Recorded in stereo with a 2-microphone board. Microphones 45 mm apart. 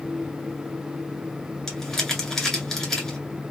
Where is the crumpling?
10° left (ahead or behind), 1.7 m.